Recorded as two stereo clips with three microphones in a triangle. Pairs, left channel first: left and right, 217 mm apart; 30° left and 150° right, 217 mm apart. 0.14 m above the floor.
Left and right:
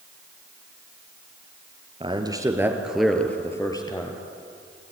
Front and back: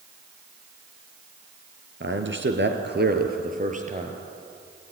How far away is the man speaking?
About 2.5 m.